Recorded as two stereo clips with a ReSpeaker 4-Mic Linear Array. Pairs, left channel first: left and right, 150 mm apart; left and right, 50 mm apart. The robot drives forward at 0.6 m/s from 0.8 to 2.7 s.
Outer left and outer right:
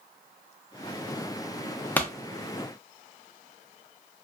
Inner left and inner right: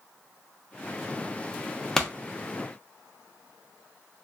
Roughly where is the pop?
Centre.